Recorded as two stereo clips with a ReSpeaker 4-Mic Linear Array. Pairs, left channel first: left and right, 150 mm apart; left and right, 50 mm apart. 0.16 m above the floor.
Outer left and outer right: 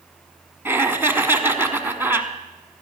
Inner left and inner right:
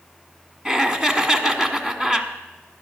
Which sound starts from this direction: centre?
Laughter, at 0.7 s.